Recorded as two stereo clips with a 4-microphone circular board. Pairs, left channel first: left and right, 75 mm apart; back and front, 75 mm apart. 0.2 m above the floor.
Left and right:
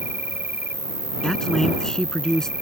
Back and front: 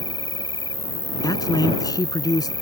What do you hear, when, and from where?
0.0 s an insect: 155° right
1.2 s a man speaking: 170° left